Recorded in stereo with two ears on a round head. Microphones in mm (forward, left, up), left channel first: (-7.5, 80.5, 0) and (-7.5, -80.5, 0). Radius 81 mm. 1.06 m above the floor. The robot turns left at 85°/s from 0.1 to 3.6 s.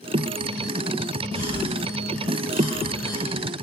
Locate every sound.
1.3 s a cough: 30° right (ahead or behind), 4 m; by 3.2 s 5° left (ahead or behind), 4 m